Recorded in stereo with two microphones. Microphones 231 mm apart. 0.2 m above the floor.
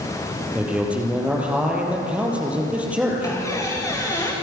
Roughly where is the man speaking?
Centre.